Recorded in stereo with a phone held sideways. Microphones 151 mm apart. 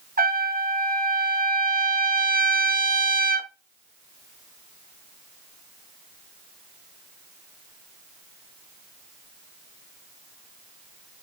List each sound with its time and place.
0.2 s a trumpet: 80° right, 0.6 m